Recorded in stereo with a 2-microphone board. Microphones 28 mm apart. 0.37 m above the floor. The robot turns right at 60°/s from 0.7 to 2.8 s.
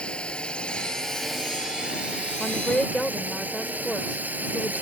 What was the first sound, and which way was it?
A drone, 145° left.